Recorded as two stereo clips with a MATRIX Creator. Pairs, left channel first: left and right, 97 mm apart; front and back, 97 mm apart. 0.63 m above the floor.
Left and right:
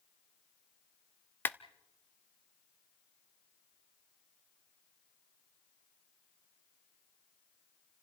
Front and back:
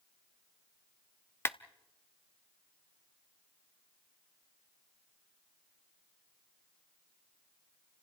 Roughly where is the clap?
Ahead left.